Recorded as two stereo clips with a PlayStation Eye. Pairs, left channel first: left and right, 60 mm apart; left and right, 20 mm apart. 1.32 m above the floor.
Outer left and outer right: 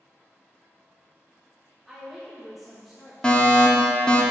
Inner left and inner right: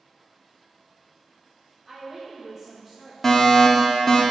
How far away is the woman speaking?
About 1.3 m.